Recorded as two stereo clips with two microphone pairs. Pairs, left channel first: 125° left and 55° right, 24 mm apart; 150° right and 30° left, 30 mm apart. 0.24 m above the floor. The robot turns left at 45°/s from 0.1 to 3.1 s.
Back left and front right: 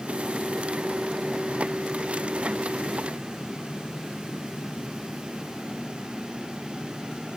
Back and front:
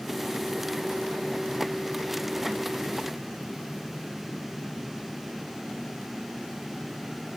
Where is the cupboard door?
I don't hear a cupboard door.